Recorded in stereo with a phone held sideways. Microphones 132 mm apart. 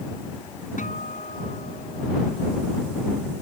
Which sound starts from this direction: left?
A guitar, at 0.8 s.